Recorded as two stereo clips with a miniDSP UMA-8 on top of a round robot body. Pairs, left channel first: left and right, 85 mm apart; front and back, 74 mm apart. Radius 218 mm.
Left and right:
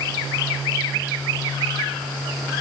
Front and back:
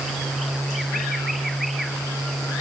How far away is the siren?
No siren in this recording.